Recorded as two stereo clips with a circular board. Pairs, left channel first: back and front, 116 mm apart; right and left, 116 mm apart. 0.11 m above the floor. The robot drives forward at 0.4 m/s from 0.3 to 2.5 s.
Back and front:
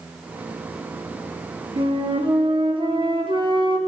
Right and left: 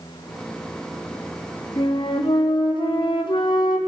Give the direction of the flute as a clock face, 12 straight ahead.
1 o'clock.